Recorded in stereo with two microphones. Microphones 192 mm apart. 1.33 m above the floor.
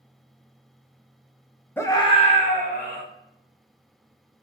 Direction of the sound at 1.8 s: 10° left (ahead or behind).